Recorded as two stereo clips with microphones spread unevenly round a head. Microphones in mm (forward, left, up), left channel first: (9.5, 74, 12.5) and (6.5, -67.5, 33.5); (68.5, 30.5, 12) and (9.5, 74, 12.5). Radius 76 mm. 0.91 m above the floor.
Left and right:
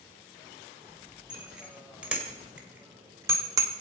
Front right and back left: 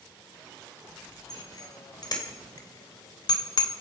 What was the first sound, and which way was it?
A bicycle bell, 5° right.